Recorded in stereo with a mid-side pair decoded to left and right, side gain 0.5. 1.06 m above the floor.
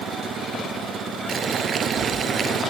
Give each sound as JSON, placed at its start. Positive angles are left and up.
{"t": 1.3, "sound": "boiling", "azimuth_deg": -45}